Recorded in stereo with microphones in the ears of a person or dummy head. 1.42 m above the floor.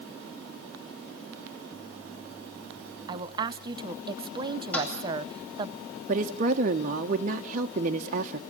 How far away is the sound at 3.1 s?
About 0.8 m.